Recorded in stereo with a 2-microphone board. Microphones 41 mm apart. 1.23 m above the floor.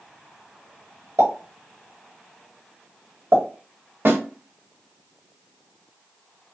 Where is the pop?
75° right (ahead or behind), 3 m.